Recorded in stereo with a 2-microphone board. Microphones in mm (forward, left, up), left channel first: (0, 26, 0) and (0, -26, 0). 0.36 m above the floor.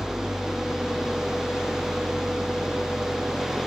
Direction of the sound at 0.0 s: 10° right (ahead or behind).